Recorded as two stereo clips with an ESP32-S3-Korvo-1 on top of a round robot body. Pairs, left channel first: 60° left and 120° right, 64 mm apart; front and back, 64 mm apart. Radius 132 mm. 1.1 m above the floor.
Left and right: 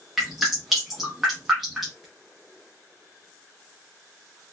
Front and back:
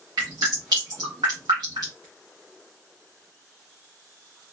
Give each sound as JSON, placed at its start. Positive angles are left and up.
{"t": 0.2, "sound": "dripping", "azimuth_deg": 155, "distance_m": 0.5}